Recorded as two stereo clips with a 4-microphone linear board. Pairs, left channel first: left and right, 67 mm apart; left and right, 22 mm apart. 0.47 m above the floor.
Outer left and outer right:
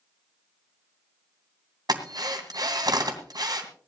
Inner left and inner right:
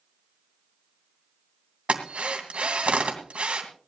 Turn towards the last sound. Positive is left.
turn(degrees=-70)  # may be behind; listen again after turning